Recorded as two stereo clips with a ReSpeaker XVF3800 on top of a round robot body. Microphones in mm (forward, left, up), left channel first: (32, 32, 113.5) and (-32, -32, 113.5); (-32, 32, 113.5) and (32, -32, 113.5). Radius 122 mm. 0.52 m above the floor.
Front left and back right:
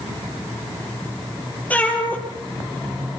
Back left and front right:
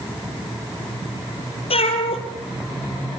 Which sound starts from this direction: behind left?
A cat meowing, at 1.7 s.